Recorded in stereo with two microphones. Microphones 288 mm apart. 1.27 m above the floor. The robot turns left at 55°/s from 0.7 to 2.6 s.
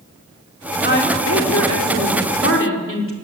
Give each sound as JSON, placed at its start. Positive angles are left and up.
{"t": 0.8, "sound": "a woman speaking", "azimuth_deg": 145, "distance_m": 4.0}